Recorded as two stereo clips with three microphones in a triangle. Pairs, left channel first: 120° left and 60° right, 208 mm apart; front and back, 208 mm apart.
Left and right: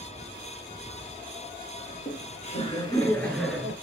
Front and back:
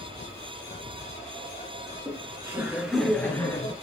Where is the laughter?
125° left, 2.5 m; by 3.7 s straight ahead, 1.8 m.